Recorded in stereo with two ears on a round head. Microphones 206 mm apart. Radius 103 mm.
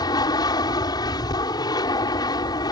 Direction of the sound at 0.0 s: 15° left (ahead or behind).